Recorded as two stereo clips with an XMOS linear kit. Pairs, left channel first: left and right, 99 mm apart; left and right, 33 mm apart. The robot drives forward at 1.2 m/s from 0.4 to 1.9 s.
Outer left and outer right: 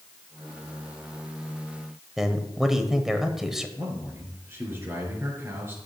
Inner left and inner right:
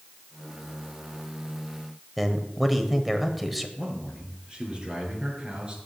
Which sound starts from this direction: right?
A man speaking, at 3.8 s.